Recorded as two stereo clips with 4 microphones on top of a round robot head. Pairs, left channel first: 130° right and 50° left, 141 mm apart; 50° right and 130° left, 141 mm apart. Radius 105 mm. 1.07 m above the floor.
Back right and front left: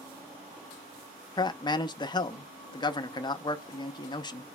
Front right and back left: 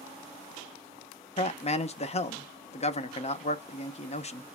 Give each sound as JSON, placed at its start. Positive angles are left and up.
{"t": 1.4, "sound": "a man speaking", "azimuth_deg": -80, "distance_m": 0.7}